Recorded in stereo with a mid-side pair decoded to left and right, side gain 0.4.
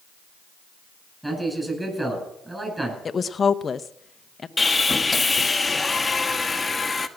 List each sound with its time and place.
1.2 s a man speaking: 15° right, 9.5 m
3.0 s a woman speaking: 40° left, 0.8 m
4.6 s sawing: 25° left, 1.2 m